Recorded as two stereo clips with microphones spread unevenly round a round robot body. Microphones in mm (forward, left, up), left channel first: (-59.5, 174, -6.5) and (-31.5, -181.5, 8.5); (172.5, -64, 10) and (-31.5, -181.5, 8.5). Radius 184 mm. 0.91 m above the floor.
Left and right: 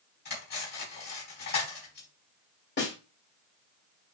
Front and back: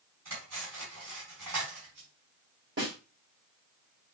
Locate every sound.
0.2 s cutlery clinking: 160° left, 4 m
2.8 s a snare drum: 155° left, 2 m